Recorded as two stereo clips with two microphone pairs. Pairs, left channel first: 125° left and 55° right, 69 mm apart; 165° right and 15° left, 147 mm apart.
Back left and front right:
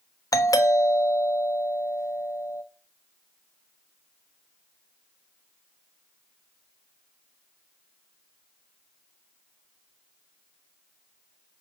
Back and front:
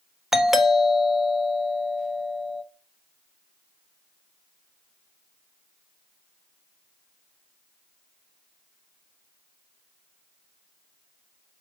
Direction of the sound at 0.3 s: 100° left.